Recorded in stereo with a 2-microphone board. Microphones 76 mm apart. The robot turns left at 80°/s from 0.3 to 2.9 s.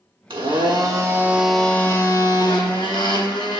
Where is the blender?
80° right, 1.2 m; by 3.6 s 70° left, 1.2 m.